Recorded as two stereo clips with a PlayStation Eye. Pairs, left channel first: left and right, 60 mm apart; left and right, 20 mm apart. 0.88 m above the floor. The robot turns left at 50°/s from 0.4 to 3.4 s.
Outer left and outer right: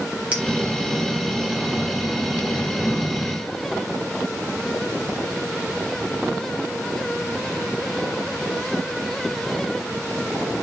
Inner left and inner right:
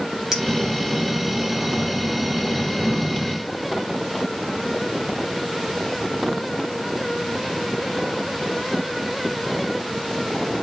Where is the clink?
20° right (ahead or behind), 3.5 m.